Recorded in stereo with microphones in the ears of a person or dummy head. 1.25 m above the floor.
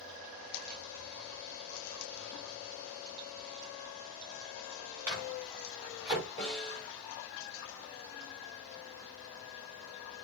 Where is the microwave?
5° right (ahead or behind), 6 m.